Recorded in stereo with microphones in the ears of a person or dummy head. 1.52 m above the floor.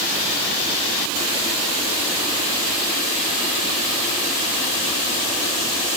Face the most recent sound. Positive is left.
No sound to turn to.